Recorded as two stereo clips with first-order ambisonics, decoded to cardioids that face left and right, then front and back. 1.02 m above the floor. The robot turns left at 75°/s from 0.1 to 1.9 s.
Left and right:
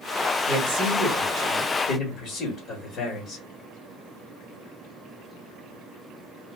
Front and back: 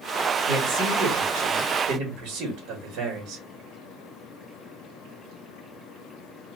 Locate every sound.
0.5 s a man speaking: 110° right, 1.5 m; by 3.4 s 145° left, 1.5 m